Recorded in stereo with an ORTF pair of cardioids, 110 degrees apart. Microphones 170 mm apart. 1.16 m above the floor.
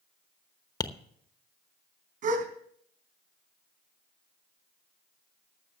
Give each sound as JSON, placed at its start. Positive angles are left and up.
{"t": 0.8, "sound": "tapping", "azimuth_deg": 25, "distance_m": 0.9}
{"t": 2.2, "sound": "a gasp", "azimuth_deg": -55, "distance_m": 4.0}